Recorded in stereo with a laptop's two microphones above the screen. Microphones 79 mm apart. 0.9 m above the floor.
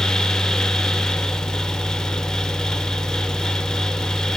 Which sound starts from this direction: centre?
A fan, at 0.0 s.